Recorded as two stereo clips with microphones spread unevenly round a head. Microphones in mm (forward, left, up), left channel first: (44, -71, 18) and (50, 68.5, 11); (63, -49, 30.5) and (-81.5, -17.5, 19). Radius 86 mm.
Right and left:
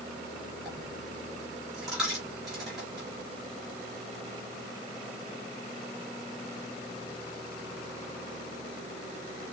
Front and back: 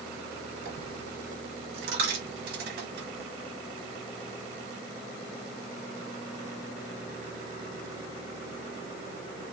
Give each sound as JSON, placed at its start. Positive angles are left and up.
{"t": 0.7, "sound": "a dropped coin", "azimuth_deg": 175, "distance_m": 4.0}